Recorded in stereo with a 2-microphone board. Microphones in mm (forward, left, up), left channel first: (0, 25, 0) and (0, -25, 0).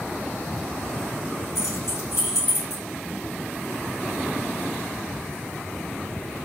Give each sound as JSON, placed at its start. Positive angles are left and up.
{"t": 1.6, "sound": "keys jangling", "side_deg": 75, "distance_m": 3.0}